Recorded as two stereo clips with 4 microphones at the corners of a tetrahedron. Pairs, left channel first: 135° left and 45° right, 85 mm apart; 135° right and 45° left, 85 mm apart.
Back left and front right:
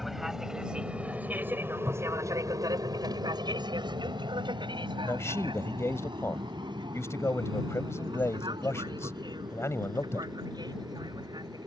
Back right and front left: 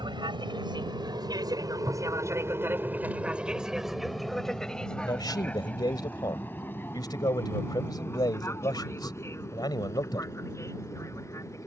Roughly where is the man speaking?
Behind.